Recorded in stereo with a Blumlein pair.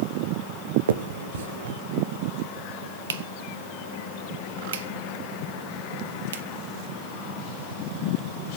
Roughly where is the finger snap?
Ahead right.